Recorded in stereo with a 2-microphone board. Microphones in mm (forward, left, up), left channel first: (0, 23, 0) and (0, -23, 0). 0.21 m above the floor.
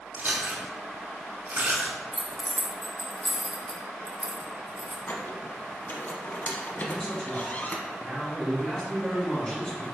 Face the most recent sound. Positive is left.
turn(degrees=10)  # may be behind; listen again after turning